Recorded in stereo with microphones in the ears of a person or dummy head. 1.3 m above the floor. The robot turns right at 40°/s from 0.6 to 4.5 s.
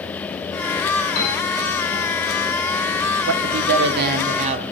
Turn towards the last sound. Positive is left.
turn(degrees=-35)